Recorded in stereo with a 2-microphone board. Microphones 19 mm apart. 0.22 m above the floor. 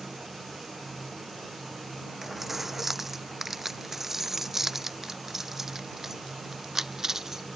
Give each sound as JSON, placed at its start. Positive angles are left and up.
{"t": 2.2, "sound": "keys jangling", "side_deg": -10}